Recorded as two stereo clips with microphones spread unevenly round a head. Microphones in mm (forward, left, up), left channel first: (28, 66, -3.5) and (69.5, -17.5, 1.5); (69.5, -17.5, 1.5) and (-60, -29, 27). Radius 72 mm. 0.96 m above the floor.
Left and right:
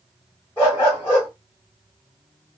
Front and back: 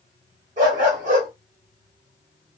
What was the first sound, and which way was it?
A dog barking, 165° right.